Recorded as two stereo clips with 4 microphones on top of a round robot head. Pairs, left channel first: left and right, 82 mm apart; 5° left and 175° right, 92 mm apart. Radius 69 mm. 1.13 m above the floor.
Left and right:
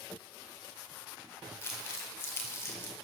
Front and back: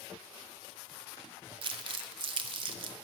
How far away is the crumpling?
About 1.6 m.